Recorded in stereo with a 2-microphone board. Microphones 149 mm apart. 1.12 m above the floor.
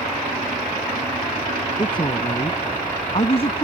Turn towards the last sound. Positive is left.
turn(degrees=40)  # may be behind; listen again after turning